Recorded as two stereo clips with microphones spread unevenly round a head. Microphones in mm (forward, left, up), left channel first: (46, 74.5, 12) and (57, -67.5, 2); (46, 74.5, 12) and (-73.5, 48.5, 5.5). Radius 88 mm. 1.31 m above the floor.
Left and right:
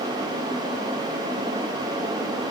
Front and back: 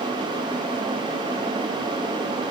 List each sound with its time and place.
Only background noise.